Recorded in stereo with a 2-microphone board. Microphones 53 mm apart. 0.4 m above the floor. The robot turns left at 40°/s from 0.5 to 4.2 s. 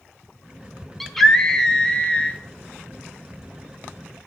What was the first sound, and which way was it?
A scream, centre (ahead or behind).